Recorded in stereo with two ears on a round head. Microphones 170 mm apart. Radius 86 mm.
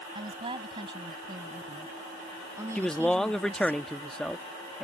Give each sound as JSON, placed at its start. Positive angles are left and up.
{"t": 0.1, "sound": "a woman speaking", "side_deg": -30}
{"t": 2.8, "sound": "a man speaking", "side_deg": 5}